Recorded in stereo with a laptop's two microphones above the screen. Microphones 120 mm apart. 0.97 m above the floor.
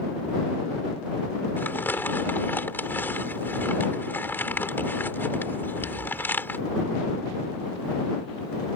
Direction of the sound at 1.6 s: 15° left (ahead or behind).